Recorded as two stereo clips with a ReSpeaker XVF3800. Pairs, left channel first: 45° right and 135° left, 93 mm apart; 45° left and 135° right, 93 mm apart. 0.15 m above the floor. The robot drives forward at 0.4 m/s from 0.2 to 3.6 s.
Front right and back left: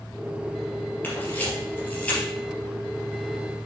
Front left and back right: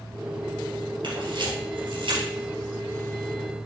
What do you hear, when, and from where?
1.0 s a camera shutter: 115° right, 3 m; by 2.2 s 120° right, 3 m